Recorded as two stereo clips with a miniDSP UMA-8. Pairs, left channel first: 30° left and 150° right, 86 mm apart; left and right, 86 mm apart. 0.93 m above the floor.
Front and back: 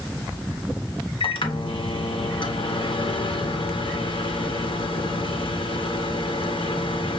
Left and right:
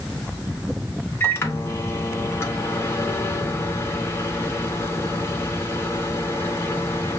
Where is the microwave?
25° left, 1.0 m.